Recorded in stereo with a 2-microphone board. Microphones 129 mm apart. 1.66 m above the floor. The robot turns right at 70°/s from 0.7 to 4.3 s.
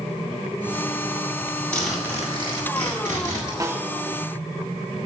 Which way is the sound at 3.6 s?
25° right (ahead or behind).